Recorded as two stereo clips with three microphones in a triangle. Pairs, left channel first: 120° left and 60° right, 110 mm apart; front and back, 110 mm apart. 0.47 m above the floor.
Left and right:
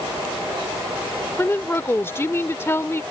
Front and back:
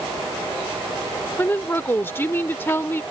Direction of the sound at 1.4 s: 65° left.